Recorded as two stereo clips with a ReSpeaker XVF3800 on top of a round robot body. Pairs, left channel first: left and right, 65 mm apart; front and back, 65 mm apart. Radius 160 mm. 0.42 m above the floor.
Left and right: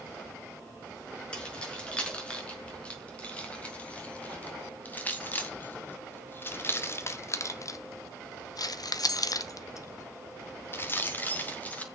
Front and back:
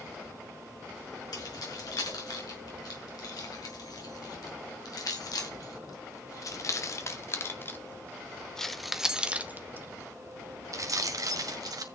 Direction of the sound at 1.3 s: 15° left.